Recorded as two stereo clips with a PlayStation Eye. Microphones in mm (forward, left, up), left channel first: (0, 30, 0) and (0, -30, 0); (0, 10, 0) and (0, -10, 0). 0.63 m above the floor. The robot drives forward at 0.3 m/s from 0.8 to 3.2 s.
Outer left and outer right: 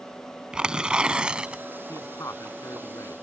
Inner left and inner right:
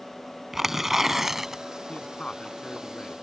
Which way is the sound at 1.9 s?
65° left (ahead or behind).